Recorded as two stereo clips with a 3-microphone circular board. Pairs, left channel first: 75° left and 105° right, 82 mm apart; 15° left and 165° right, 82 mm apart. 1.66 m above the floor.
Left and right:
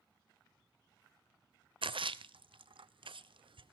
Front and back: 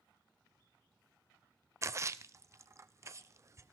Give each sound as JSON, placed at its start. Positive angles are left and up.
{"t": 1.8, "sound": "a splash", "azimuth_deg": -110, "distance_m": 0.7}